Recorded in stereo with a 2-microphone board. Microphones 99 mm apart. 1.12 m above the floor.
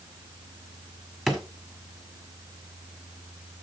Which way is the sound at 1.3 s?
5° left (ahead or behind).